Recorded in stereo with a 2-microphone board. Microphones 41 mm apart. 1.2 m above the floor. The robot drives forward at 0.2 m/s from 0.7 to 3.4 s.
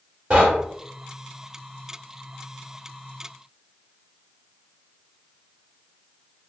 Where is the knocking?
30° right (ahead or behind), 2 m.